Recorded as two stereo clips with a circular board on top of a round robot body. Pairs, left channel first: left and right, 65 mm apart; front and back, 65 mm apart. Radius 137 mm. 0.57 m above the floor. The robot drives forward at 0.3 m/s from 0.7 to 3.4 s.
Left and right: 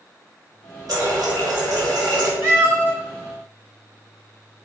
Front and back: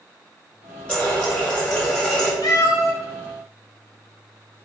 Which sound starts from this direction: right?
A running tap, at 0.9 s.